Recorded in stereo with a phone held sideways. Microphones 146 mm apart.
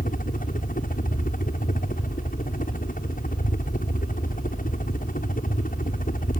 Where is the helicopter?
70° left (ahead or behind).